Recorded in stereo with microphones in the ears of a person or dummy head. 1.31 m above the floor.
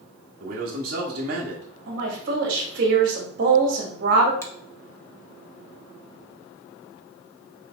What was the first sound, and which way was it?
A man speaking, 55° right (ahead or behind).